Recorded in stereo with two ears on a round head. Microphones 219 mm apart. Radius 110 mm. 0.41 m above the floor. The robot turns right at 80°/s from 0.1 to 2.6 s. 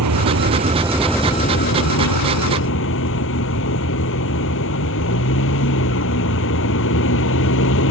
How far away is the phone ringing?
No phone ringing in this recording.